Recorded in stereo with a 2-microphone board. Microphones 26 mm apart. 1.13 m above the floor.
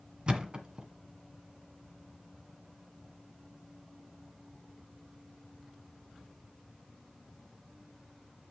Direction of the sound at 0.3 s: 40° right (ahead or behind).